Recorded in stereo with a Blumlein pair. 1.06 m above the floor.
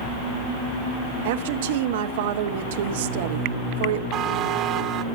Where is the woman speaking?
55° right, 0.8 m.